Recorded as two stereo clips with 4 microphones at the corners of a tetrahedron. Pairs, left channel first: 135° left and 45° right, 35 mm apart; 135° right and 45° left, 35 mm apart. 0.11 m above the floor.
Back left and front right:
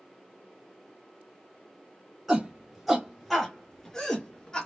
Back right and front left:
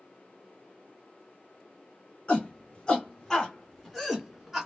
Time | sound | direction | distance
2.3 | a shout | 110° right | 1.6 m